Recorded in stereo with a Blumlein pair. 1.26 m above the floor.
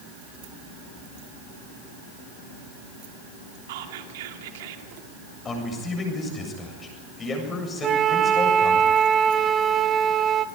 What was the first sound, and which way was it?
Whispering, 55° right.